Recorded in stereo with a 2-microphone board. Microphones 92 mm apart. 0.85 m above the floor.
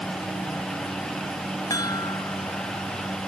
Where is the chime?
45° left (ahead or behind).